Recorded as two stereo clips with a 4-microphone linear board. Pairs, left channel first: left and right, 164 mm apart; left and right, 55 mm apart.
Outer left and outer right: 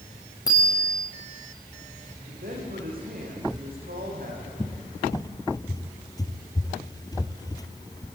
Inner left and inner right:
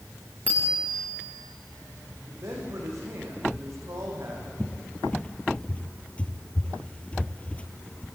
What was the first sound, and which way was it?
A bicycle bell, 25° left (ahead or behind).